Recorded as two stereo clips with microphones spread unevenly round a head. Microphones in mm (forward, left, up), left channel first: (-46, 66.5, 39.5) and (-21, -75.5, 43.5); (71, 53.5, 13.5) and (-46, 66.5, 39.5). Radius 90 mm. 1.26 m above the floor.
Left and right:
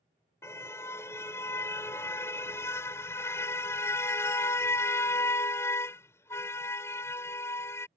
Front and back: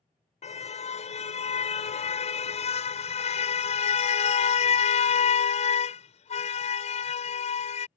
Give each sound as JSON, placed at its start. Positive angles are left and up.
{"t": 0.4, "sound": "a car horn", "azimuth_deg": 25}